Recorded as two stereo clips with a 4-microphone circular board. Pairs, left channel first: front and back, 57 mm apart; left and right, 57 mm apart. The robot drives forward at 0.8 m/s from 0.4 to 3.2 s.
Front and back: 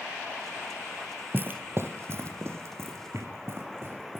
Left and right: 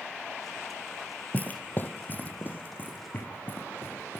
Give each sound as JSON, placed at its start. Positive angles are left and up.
{"t": 1.3, "sound": "footsteps", "azimuth_deg": 140, "distance_m": 0.5}